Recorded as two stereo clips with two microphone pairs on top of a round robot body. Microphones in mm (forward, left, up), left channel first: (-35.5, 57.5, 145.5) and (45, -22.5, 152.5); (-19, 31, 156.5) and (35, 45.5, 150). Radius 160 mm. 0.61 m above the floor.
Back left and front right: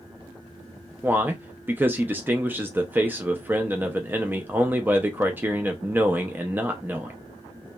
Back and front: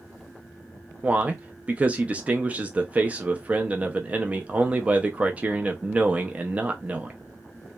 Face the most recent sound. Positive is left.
turn(degrees=20)